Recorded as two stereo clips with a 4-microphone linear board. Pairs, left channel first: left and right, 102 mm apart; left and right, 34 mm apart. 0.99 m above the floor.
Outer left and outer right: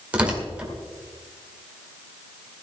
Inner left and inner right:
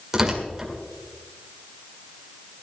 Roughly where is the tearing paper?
Centre.